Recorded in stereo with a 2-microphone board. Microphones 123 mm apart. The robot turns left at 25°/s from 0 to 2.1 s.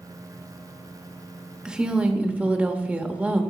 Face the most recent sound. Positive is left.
turn(degrees=-10)  # may be behind; listen again after turning